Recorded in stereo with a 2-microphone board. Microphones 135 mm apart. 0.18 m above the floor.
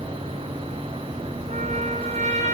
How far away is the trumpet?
About 0.8 m.